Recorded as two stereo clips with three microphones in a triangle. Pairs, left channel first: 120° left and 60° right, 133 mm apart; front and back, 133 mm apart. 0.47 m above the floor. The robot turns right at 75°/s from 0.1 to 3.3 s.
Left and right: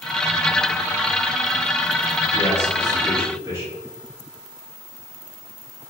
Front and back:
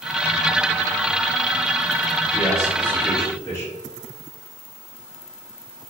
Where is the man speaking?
105° right, 1.4 m; by 3.7 s 30° right, 1.4 m.